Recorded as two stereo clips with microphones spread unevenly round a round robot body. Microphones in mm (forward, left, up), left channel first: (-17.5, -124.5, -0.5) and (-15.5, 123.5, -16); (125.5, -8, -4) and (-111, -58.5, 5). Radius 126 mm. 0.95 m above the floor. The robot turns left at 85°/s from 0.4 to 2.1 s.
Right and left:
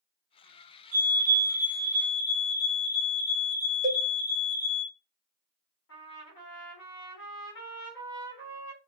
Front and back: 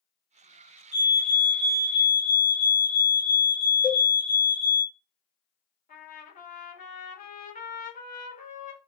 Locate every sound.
0.9 s a fire alarm: 75° left, 1.9 m; by 4.8 s 25° right, 1.9 m
3.8 s a cowbell: 110° left, 0.6 m
5.9 s a trumpet: 45° right, 1.2 m